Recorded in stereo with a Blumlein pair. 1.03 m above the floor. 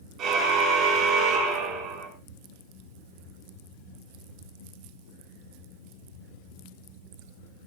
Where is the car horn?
35° right, 9 m.